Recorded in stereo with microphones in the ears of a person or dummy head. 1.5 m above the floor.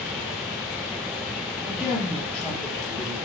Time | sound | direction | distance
1.6 | a woman speaking | 10° right (ahead or behind) | 1.8 m